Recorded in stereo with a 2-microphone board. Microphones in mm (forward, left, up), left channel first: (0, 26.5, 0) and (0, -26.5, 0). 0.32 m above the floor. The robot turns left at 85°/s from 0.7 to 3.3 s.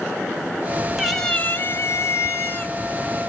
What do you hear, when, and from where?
1.0 s a cat meowing: 170° right, 0.9 m; by 2.7 s 40° left, 0.9 m